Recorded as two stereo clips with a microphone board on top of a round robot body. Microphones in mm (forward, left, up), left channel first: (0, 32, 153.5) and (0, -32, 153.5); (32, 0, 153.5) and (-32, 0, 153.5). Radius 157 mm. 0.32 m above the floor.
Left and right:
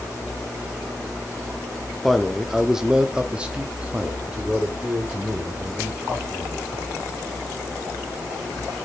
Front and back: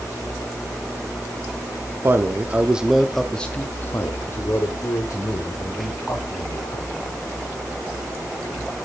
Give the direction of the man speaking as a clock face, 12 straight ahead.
6 o'clock.